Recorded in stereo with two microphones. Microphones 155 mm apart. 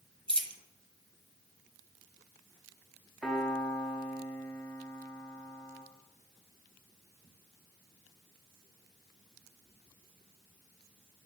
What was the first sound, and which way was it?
A dropped coin, 35° right (ahead or behind).